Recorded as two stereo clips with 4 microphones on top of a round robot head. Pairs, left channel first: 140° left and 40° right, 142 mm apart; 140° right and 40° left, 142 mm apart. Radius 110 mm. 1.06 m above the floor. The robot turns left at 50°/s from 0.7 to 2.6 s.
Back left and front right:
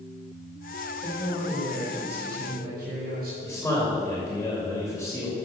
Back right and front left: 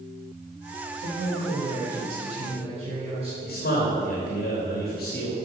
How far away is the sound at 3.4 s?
About 2.5 m.